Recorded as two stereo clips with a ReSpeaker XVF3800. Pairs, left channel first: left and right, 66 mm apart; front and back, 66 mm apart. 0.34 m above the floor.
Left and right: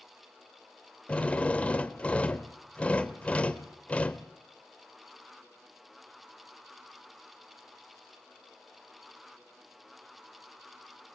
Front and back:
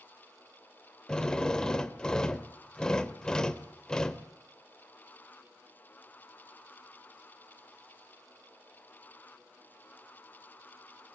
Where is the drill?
55° left, 1.0 m.